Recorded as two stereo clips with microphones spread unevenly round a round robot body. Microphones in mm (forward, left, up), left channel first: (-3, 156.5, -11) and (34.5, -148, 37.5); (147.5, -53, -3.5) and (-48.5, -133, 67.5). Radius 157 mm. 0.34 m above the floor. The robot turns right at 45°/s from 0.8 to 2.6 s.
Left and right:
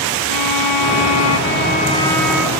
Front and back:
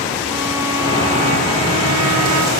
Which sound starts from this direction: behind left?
A violin, at 0.3 s.